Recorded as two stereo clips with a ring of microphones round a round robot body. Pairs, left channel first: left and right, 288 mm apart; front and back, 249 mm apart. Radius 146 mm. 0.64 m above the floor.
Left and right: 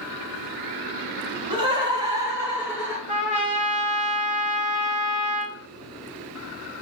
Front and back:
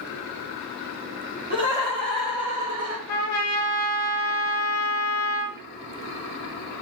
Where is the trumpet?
25° right, 1.1 m.